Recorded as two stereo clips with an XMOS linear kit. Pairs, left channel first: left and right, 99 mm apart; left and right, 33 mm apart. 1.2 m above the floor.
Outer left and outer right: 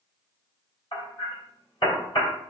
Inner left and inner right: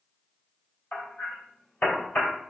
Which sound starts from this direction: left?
Hammering, at 0.9 s.